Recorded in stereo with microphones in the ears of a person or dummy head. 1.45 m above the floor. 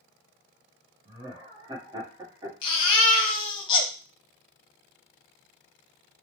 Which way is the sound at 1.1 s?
25° right (ahead or behind).